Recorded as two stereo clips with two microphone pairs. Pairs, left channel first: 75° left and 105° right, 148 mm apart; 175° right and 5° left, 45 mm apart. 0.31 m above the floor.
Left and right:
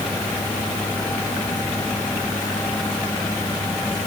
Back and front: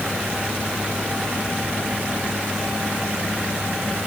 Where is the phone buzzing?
No phone buzzing in this recording.